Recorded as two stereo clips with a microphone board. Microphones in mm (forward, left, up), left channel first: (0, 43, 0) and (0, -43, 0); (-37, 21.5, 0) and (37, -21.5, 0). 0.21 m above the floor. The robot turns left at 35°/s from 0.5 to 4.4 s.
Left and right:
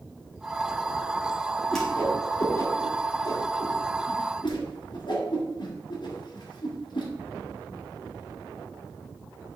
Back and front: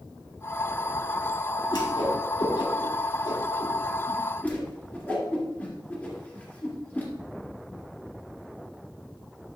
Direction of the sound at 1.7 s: 175° left.